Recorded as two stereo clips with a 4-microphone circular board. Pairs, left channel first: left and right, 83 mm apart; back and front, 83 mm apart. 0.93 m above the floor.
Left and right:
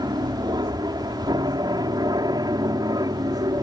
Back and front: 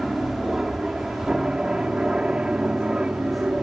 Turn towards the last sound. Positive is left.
turn(degrees=-75)